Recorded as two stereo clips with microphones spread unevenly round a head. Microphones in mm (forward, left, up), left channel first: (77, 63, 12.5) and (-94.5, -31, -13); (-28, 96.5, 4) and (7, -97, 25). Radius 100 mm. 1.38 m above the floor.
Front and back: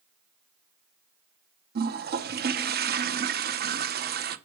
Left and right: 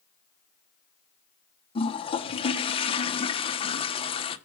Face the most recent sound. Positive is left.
turn(degrees=165)